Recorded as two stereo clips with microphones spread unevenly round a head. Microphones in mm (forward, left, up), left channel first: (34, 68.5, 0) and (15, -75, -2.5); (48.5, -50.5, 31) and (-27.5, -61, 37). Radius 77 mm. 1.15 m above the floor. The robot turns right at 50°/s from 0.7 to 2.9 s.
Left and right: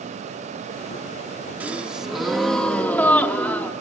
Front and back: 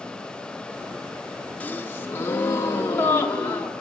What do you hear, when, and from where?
1.6 s a gasp: 35° right, 0.7 m; by 3.7 s 30° left, 0.7 m